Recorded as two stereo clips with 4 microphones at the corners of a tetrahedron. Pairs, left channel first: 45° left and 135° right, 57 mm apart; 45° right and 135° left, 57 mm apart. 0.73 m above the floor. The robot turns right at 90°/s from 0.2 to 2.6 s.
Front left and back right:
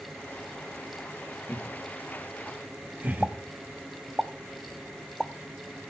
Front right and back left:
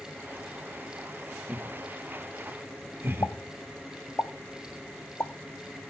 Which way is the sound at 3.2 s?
40° right.